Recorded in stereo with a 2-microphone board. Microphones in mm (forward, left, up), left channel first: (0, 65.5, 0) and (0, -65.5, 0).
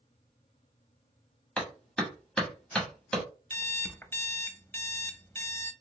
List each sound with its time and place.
1.6 s a clap: 5° left (ahead or behind), 1.6 m
3.5 s an alarm clock: 15° left (ahead or behind), 0.5 m